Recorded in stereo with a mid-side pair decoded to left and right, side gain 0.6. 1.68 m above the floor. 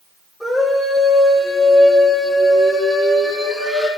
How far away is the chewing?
No chewing in this recording.